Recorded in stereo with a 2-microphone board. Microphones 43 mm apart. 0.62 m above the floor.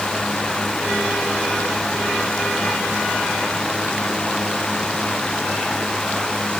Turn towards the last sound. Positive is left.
No sound to turn to.